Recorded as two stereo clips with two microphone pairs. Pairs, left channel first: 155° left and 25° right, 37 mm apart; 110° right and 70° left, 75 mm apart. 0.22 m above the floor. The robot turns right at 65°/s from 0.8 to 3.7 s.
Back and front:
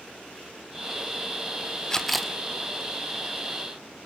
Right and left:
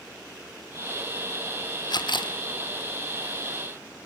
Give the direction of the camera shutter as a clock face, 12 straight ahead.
5 o'clock.